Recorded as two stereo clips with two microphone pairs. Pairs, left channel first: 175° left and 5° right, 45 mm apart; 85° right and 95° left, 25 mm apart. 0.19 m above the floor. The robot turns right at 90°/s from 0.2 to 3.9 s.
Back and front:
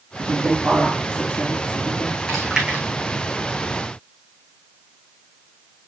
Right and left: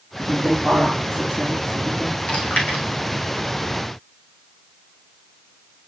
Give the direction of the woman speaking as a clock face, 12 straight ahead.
11 o'clock.